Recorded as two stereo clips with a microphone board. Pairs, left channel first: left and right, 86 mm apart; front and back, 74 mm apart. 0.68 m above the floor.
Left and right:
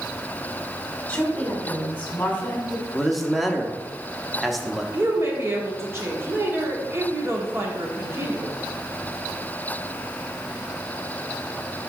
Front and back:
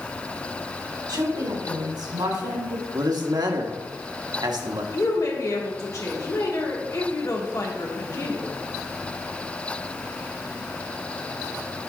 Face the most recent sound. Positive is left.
turn(degrees=-35)